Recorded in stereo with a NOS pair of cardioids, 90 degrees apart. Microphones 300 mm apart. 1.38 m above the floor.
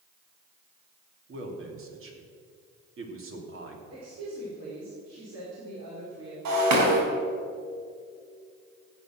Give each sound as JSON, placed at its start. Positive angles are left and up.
{"t": 1.3, "sound": "a man speaking", "azimuth_deg": -45, "distance_m": 3.5}
{"t": 3.9, "sound": "a woman speaking", "azimuth_deg": -55, "distance_m": 4.5}
{"t": 6.5, "sound": "breaking glass", "azimuth_deg": -65, "distance_m": 4.5}